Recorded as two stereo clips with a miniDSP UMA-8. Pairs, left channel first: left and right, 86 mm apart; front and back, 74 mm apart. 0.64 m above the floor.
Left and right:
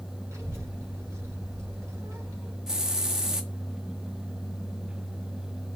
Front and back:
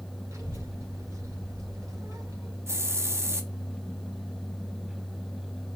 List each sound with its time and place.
0.3 s a child speaking: 140° right, 1.7 m
2.7 s a hiss: 170° right, 0.8 m